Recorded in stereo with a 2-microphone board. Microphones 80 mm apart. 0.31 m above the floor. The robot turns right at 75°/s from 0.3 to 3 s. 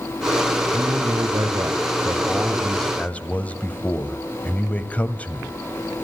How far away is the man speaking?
About 1.9 m.